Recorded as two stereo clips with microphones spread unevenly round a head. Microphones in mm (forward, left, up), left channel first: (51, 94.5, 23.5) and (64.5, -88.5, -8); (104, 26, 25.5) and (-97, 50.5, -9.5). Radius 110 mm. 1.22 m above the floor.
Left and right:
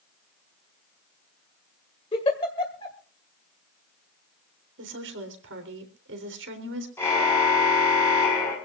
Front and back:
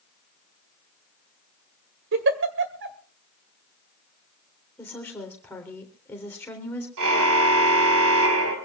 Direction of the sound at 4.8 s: 85° right.